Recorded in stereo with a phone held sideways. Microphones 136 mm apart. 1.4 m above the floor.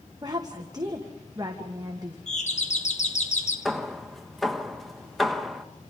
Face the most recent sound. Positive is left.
turn(degrees=0)  # may be behind; listen again after turning